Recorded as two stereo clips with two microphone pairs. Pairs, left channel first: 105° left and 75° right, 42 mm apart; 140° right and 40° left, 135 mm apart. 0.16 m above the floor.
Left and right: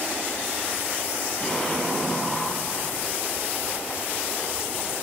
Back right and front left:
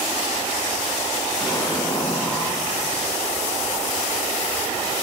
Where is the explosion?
165° left, 4 m.